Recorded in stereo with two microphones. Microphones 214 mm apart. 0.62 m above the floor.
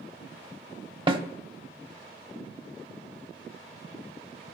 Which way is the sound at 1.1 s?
25° right (ahead or behind).